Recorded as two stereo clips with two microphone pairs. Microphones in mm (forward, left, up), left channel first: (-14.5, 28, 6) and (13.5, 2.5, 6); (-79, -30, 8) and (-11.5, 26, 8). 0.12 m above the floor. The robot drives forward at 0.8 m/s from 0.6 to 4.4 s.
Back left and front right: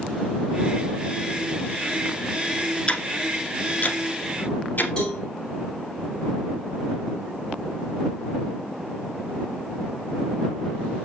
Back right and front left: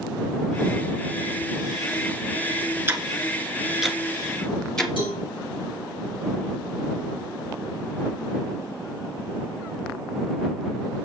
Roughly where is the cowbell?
Behind right.